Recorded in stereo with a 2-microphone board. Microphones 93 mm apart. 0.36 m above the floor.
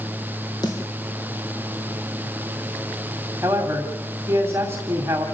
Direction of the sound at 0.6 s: 50° left (ahead or behind).